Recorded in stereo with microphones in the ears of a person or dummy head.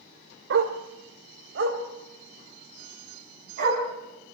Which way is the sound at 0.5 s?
70° right (ahead or behind).